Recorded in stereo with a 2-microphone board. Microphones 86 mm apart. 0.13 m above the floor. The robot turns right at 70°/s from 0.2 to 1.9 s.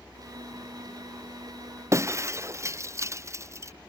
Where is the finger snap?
I don't hear a finger snap.